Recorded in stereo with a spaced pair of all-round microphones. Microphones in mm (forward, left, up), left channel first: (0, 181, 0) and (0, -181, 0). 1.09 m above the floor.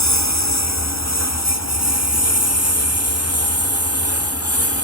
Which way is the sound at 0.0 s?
45° left (ahead or behind).